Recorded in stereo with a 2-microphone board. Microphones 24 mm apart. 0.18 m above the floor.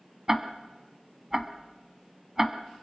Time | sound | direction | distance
0.3 | ticking | 20° right (ahead or behind) | 1.3 m